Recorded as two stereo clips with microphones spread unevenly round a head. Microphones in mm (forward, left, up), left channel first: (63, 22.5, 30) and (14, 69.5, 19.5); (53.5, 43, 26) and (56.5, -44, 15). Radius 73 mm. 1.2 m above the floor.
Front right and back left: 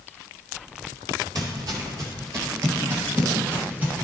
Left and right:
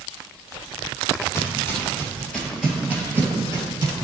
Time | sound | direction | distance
1.4 | footsteps | 135° left | 1.4 m